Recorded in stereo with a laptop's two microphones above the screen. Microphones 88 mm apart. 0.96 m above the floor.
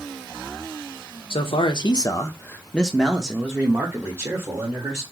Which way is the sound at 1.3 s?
70° left (ahead or behind).